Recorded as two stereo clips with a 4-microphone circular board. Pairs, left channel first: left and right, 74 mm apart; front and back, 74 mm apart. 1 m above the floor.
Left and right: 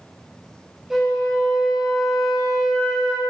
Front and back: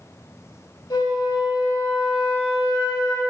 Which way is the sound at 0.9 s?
5° right.